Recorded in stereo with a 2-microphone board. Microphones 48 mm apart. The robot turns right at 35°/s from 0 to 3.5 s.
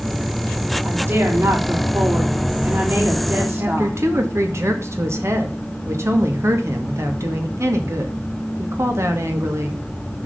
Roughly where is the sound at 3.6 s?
Right.